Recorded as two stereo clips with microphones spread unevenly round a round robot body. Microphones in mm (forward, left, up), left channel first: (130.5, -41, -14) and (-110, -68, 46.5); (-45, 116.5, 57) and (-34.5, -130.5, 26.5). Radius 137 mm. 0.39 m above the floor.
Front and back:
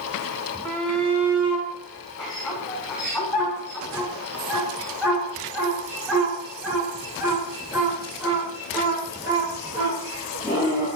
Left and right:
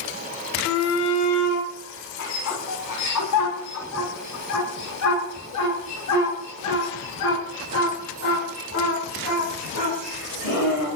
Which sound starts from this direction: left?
A shout, at 0.7 s.